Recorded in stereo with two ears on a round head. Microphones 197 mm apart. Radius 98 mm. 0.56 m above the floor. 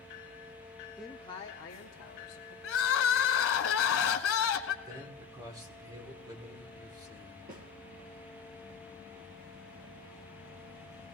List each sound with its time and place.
1.0 s a man speaking: 5° right (ahead or behind), 0.7 m; by 2.5 s 50° left (ahead or behind), 2.5 m
2.6 s crying: 65° left (ahead or behind), 1.1 m
4.8 s a man speaking: 20° right (ahead or behind), 1.7 m
7.5 s a snare drum: 40° right (ahead or behind), 3.5 m